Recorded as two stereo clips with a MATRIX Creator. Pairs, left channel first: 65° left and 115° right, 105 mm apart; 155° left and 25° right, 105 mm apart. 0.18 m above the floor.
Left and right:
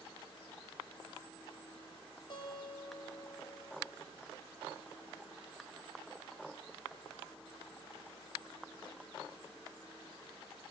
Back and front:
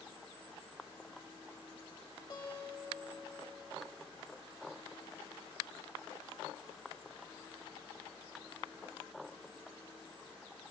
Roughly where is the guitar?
Behind left.